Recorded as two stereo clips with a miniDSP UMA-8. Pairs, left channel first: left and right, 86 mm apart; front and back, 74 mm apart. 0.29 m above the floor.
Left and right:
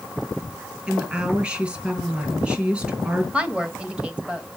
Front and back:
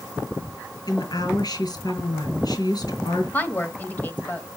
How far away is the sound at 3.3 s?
About 1.0 m.